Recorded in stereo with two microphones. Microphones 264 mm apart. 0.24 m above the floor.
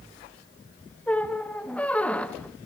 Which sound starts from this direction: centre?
A squeak, at 1.1 s.